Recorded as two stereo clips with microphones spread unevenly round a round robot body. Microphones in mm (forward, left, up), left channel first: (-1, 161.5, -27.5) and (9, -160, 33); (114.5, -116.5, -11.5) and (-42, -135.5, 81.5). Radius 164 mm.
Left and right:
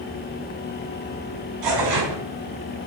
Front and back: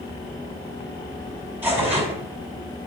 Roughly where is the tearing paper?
Right.